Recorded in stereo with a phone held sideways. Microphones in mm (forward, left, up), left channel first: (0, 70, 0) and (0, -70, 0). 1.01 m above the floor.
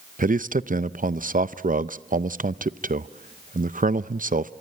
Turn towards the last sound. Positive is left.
turn(degrees=-75)  # may be behind; listen again after turning